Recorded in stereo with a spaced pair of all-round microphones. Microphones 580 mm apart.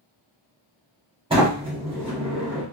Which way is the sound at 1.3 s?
10° right (ahead or behind).